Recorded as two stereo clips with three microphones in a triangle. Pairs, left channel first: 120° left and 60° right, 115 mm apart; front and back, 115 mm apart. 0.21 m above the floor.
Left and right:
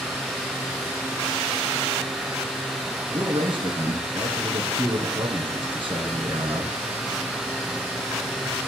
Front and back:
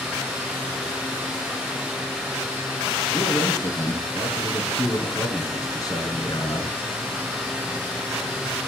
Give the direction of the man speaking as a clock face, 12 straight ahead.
1 o'clock.